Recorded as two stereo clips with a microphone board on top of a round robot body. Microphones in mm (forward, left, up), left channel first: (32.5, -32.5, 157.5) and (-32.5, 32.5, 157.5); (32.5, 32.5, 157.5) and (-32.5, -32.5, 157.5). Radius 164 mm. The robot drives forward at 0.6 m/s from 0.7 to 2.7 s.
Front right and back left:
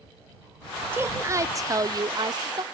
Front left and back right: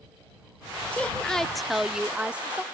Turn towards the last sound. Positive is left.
turn(degrees=155)